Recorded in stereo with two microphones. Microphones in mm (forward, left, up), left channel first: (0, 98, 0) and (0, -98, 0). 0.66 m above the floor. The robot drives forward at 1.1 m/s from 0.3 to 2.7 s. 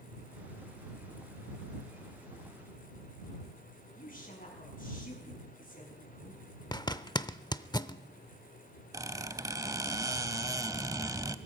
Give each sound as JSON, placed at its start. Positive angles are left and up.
{"t": 4.0, "sound": "a woman speaking", "side_deg": 45, "distance_m": 6.0}
{"t": 6.7, "sound": "a zipper", "side_deg": 20, "distance_m": 0.6}
{"t": 8.9, "sound": "a squeak", "side_deg": -20, "distance_m": 0.7}